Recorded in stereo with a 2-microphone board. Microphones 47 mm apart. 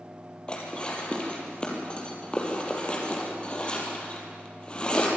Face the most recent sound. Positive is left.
turn(degrees=25)  # may be behind; listen again after turning